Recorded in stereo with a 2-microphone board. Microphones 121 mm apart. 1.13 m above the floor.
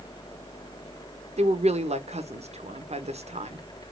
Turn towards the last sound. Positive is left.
turn(degrees=-65)  # may be behind; listen again after turning